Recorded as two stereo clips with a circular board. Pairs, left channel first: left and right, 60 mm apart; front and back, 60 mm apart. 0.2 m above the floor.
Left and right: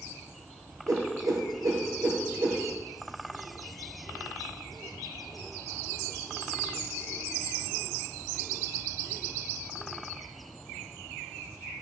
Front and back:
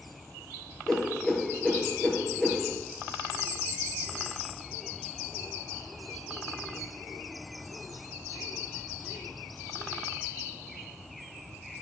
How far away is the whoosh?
About 1.2 m.